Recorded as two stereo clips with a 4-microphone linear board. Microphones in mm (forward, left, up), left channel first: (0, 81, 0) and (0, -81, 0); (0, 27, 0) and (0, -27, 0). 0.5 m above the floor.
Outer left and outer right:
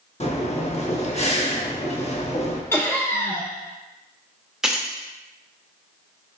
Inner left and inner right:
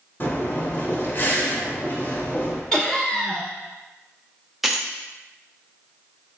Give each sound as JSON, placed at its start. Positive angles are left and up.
{"t": 0.2, "sound": "breathing", "side_deg": 40, "distance_m": 0.7}
{"t": 2.7, "sound": "laughter", "side_deg": 15, "distance_m": 0.7}
{"t": 4.6, "sound": "keys jangling", "side_deg": -5, "distance_m": 0.6}